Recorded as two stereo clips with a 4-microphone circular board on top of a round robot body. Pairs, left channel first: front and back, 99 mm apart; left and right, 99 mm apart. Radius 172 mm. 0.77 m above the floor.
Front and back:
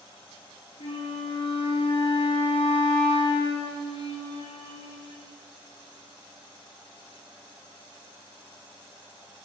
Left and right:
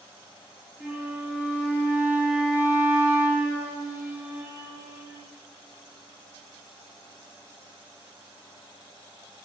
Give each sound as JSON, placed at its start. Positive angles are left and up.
{"t": 0.8, "sound": "a flute", "azimuth_deg": -15, "distance_m": 1.6}